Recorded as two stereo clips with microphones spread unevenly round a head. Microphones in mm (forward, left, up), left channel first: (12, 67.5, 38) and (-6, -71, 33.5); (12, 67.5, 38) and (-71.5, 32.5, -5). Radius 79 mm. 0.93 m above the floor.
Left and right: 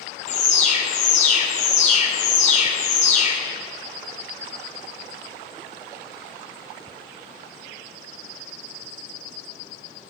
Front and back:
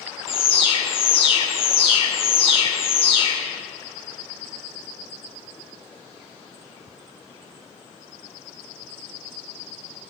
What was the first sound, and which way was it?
An alarm, 45° left.